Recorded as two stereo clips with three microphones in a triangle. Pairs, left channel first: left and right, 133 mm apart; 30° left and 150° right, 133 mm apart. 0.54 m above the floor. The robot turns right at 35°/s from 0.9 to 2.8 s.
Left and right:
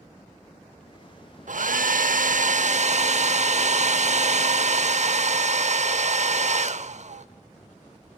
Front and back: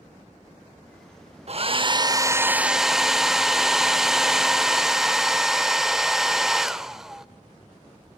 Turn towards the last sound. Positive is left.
turn(degrees=-65)